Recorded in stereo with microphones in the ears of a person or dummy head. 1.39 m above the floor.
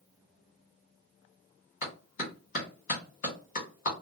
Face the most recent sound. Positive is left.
turn(degrees=35)  # may be behind; listen again after turning